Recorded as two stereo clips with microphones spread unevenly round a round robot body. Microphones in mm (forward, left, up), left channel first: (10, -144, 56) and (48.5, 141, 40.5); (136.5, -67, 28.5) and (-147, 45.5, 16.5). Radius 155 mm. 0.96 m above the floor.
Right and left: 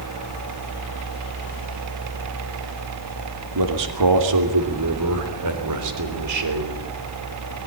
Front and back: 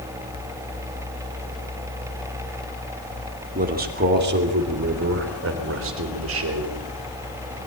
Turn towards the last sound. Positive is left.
turn(degrees=115)